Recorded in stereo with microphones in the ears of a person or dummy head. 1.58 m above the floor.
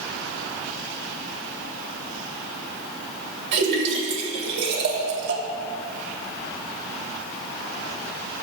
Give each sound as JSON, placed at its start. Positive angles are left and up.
{"t": 3.5, "sound": "a splash", "side_deg": -60, "distance_m": 2.5}